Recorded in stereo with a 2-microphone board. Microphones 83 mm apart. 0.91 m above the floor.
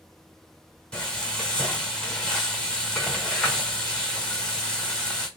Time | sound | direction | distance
0.9 | frying | 15° left (ahead or behind) | 1.1 m